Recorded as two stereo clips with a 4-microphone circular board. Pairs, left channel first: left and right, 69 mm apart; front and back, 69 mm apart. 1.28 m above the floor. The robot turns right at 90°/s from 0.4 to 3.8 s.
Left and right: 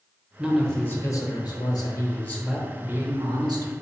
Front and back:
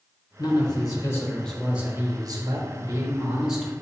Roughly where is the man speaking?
Ahead.